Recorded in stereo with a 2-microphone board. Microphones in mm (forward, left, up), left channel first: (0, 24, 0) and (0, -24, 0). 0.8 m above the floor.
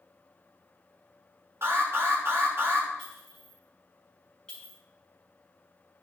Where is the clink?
20° left (ahead or behind), 5 m.